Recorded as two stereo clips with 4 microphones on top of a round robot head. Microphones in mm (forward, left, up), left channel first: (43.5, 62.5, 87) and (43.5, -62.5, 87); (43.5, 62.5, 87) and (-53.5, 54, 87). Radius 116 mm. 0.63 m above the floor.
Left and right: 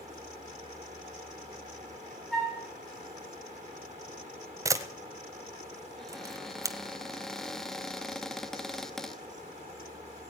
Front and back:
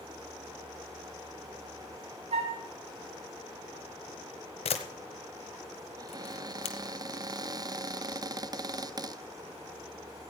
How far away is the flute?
About 4 m.